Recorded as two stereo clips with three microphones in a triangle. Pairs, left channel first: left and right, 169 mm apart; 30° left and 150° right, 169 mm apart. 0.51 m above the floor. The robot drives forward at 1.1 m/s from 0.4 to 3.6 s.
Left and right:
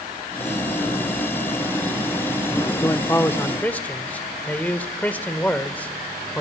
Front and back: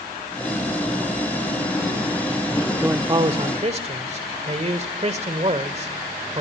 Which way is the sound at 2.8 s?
140° left.